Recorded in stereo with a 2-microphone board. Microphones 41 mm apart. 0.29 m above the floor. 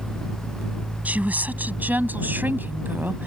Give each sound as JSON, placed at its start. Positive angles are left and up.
{"t": 1.1, "sound": "a woman speaking", "side_deg": -40}